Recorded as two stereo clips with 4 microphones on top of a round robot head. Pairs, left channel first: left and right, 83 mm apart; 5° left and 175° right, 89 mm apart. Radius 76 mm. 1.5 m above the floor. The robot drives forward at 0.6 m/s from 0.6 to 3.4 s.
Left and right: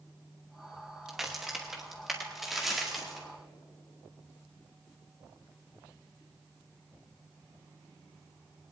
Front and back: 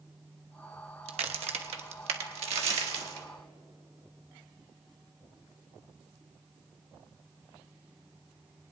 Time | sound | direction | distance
1.1 | a crack | 175° right | 0.8 m